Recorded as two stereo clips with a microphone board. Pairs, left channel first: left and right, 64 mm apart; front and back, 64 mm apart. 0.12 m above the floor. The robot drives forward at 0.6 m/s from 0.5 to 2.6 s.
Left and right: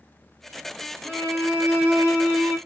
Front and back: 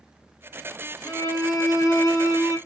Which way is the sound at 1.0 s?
25° right.